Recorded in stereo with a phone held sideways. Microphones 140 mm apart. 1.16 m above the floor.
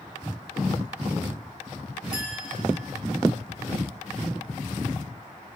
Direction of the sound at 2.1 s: 75° right (ahead or behind).